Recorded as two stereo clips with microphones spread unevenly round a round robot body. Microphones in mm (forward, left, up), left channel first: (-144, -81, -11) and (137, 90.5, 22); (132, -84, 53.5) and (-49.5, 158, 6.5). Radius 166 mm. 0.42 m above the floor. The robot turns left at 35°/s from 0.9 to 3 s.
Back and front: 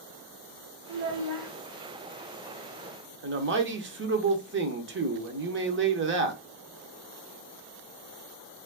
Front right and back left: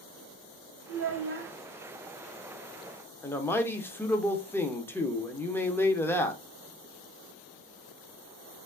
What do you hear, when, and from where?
0.9 s a child speaking: 95° left, 1.2 m; by 1.5 s 70° left, 1.2 m
3.2 s a man speaking: 40° left, 0.8 m